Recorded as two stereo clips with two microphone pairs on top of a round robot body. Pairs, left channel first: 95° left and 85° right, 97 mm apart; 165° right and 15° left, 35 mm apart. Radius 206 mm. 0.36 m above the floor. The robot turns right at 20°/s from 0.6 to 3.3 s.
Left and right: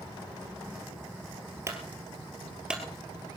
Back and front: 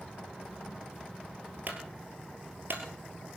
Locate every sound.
1.7 s a clunk: 25° right, 2 m; by 3.4 s 10° left, 2 m